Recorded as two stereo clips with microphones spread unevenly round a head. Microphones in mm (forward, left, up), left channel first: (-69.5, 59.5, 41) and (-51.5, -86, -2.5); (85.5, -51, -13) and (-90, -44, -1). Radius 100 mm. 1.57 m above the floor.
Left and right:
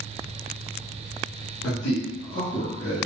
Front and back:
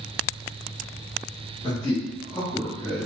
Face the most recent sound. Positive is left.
turn(degrees=80)